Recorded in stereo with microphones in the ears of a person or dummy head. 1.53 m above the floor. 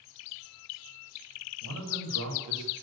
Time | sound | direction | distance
1.6 | a man speaking | 90° right | 8 m